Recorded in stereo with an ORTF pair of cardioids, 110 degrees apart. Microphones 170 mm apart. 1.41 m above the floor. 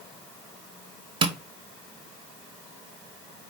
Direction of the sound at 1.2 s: 30° right.